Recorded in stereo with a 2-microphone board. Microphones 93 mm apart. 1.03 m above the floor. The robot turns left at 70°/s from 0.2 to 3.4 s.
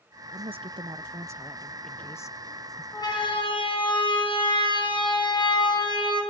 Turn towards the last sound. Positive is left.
turn(degrees=50)  # may be behind; listen again after turning